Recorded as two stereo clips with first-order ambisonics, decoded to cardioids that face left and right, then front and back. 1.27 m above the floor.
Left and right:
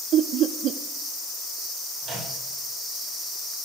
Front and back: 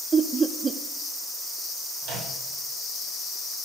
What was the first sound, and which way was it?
Laughter, 115° right.